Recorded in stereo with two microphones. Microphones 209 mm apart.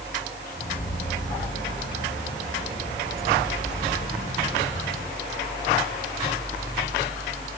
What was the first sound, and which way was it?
Keys jangling, 55° left (ahead or behind).